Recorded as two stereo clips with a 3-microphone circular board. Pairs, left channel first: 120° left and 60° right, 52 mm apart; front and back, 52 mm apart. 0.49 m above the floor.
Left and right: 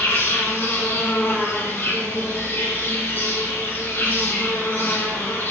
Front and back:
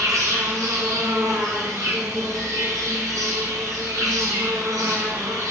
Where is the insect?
175° left, 2 m.